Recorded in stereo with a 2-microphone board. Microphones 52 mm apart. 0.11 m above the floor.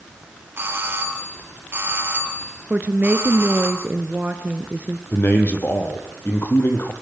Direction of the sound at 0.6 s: 45° right (ahead or behind).